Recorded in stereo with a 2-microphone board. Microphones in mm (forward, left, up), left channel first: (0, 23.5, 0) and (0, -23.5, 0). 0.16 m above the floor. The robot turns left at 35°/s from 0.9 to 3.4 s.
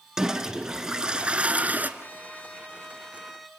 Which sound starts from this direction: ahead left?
A trumpet, at 2.0 s.